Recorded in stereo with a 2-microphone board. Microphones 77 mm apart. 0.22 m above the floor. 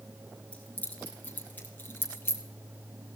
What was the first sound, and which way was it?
Keys jangling, 15° left (ahead or behind).